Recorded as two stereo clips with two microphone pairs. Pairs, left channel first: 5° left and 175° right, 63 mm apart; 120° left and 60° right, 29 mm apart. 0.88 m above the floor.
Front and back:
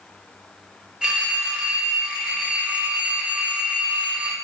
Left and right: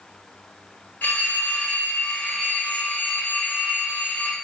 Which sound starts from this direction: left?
A phone ringing, at 1.0 s.